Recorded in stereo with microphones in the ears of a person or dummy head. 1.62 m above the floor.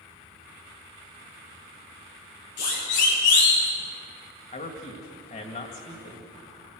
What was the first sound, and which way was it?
A siren, 55° left (ahead or behind).